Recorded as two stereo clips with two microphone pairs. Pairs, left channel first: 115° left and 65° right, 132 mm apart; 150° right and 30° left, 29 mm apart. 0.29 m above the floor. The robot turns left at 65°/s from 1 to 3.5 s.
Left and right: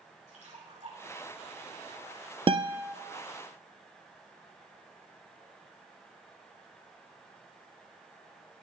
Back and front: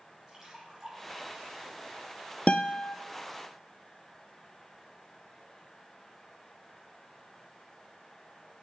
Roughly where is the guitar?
Right.